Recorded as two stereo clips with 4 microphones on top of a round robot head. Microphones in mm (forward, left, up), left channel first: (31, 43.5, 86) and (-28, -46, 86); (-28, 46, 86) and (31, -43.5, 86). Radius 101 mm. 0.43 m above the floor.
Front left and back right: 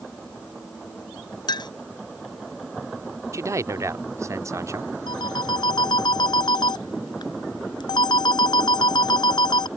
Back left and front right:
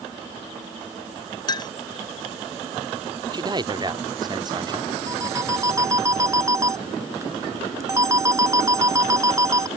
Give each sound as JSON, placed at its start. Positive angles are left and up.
{"t": 1.5, "sound": "a clink", "azimuth_deg": 90}
{"t": 3.3, "sound": "a man speaking", "azimuth_deg": -75}
{"t": 5.1, "sound": "a phone ringing", "azimuth_deg": 5}